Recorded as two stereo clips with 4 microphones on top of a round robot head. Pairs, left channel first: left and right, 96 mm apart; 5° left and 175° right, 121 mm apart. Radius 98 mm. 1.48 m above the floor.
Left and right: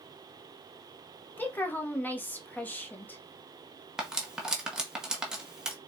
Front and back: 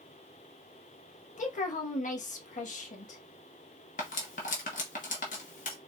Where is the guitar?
No guitar in this recording.